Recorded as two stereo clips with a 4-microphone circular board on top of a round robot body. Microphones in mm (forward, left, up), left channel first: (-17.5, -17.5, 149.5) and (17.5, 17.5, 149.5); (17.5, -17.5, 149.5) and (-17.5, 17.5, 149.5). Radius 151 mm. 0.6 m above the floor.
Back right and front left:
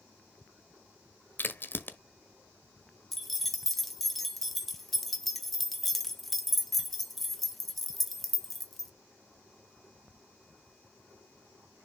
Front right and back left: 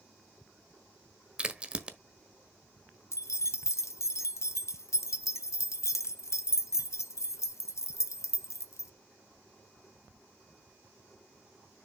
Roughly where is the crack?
Behind.